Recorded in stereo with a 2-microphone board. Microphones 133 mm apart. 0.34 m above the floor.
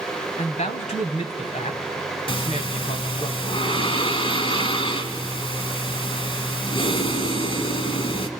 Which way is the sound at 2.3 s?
45° left (ahead or behind).